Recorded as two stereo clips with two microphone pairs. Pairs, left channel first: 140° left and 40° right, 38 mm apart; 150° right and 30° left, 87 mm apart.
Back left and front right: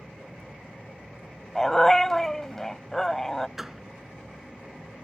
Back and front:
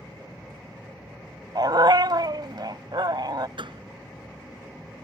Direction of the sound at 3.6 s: 40° left.